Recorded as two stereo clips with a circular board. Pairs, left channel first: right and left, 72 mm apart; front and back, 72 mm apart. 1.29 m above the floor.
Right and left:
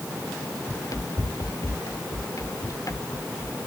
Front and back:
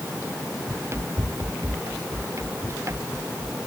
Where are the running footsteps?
130° right; by 3.6 s 135° right.